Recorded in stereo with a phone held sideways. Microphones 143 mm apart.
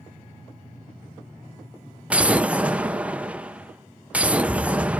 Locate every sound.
2.1 s an explosion: 10° right (ahead or behind), 0.5 m